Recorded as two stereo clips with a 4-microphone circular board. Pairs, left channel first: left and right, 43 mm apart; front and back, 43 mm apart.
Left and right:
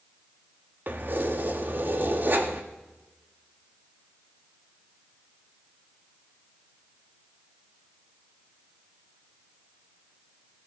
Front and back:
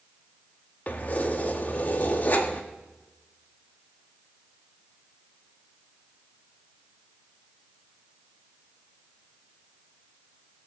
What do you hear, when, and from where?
0.9 s keys jangling: 50° right, 1.3 m